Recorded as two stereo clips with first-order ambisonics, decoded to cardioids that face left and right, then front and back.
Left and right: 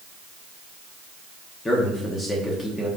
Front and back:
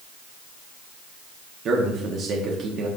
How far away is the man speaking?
About 0.9 m.